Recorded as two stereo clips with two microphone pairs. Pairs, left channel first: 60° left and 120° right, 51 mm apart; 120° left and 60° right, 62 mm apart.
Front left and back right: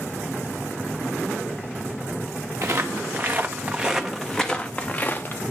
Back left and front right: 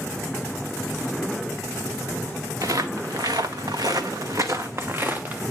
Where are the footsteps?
90° right, 1.2 m; by 5.4 s 5° left, 1.1 m.